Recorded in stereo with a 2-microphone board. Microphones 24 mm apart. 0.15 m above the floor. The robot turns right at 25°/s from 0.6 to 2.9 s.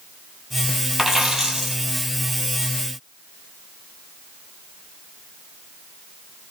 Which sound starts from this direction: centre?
A dropped coin, at 1.0 s.